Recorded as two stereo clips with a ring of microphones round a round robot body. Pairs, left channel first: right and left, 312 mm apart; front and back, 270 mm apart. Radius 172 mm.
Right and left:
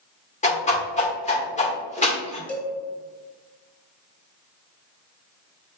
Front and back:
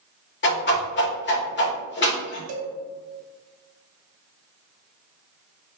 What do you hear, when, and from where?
0.4 s a whoosh: 30° right, 1.7 m
2.5 s a cowbell: 175° right, 1.3 m